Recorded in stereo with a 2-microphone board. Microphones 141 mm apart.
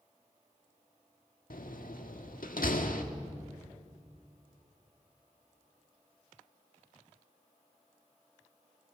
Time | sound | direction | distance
1.5 | a door slam | 80° left | 1.7 m